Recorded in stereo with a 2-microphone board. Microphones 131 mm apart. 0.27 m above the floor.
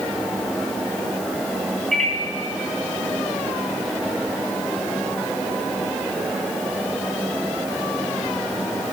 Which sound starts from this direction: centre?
A microwave, at 1.9 s.